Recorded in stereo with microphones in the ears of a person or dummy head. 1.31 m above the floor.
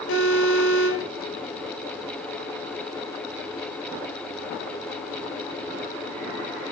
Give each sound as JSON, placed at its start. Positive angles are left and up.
{"t": 0.1, "sound": "an alarm", "side_deg": 80, "distance_m": 7.0}